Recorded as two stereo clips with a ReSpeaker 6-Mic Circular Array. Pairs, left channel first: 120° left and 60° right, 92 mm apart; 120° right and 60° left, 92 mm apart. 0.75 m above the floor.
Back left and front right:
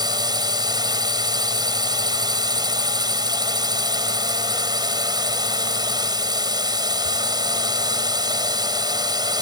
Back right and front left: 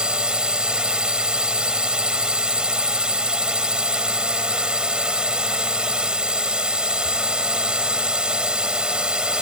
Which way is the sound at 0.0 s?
20° right.